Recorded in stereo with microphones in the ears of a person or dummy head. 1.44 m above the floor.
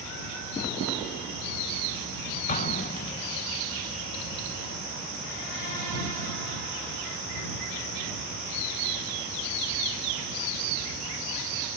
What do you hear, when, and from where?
2.5 s an explosion: 35° left (ahead or behind)